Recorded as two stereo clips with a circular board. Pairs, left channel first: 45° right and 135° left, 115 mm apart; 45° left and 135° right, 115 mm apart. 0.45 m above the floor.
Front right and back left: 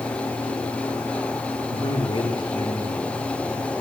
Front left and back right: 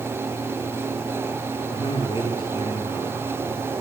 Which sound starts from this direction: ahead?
A man speaking, at 1.7 s.